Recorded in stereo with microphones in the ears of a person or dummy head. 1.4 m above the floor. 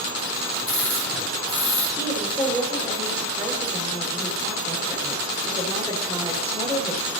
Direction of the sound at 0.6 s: 10° left (ahead or behind).